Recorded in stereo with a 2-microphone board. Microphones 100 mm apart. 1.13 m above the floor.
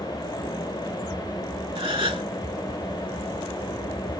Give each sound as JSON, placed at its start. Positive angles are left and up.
{"t": 1.8, "sound": "a gasp", "side_deg": -55, "distance_m": 1.6}